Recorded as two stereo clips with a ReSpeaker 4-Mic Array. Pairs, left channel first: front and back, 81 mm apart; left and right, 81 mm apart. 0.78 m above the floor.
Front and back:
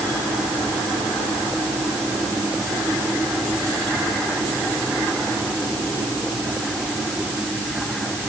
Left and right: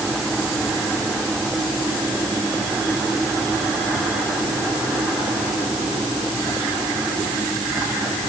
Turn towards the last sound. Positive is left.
No sound to turn to.